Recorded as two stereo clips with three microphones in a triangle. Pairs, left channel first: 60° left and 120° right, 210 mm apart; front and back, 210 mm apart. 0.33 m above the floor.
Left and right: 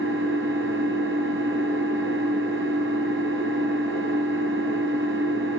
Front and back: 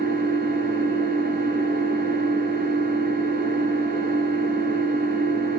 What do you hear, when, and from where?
0.0 s an engine running: 135° right, 5 m